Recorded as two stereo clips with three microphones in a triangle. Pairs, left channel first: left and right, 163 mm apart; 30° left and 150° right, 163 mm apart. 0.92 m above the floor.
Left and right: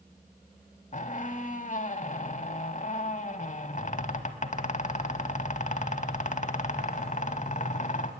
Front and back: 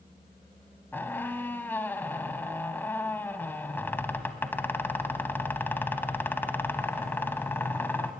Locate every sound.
0.9 s a squeak: 105° left, 1.1 m